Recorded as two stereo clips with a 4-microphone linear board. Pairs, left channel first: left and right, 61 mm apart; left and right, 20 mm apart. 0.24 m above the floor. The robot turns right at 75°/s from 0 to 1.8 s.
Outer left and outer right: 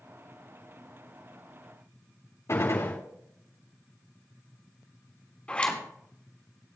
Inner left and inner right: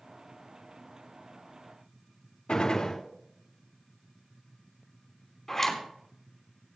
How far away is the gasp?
I don't hear a gasp.